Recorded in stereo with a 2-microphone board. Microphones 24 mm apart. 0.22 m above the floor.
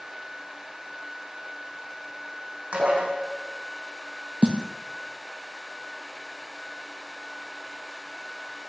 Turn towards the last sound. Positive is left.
turn(degrees=-50)  # may be behind; listen again after turning